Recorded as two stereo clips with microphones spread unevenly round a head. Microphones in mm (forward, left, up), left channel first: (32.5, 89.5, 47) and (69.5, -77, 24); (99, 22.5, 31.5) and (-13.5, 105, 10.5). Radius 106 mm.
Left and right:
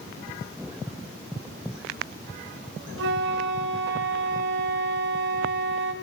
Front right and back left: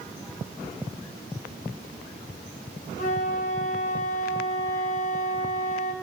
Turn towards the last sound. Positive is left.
turn(degrees=-70)